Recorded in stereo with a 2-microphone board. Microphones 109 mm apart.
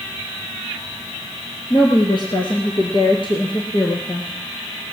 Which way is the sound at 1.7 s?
45° left (ahead or behind).